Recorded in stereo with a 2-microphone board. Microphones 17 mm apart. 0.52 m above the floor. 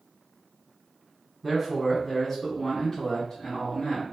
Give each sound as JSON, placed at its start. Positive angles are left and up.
{"t": 1.4, "sound": "a man speaking", "side_deg": 0, "distance_m": 1.4}